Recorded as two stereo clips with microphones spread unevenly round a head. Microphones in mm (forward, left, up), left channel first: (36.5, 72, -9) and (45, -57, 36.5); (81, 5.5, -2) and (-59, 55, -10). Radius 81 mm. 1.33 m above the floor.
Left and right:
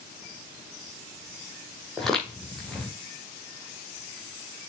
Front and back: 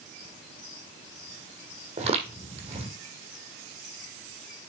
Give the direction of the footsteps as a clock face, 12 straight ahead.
5 o'clock.